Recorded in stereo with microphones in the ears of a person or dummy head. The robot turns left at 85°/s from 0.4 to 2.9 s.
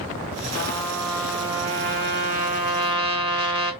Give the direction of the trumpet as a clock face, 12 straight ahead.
10 o'clock.